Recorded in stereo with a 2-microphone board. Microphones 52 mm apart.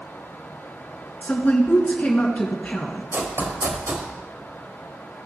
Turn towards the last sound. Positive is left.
turn(degrees=-50)  # may be behind; listen again after turning